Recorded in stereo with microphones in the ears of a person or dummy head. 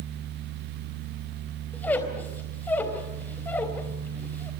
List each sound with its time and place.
1.7 s a squeak: 10° left (ahead or behind), 3.5 m